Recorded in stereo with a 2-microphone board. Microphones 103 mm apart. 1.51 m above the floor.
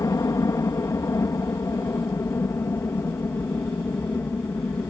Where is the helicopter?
30° left (ahead or behind); by 4.9 s 20° left (ahead or behind).